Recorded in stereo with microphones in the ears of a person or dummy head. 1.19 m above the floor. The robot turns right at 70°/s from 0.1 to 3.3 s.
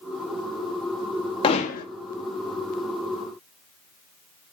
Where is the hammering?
35° left (ahead or behind), 1.9 m; by 1.9 s 65° left (ahead or behind), 1.9 m.